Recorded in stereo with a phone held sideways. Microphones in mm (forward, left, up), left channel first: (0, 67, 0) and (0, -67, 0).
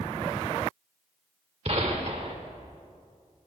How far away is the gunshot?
About 1.7 m.